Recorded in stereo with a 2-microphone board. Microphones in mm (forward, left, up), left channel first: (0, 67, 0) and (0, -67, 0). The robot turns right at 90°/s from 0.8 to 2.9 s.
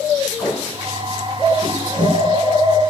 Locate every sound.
0.4 s tape being pulled: 25° left (ahead or behind), 3.5 m; by 2.2 s 80° right, 3.5 m